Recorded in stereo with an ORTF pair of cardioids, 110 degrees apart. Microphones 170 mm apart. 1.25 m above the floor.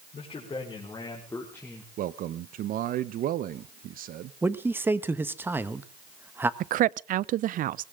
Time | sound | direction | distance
0.1 | a man speaking | 35° left | 4.5 m
2.0 | a man speaking | 55° right | 0.7 m
4.4 | a man speaking | 10° right | 1.2 m
6.6 | a woman speaking | 55° right | 0.5 m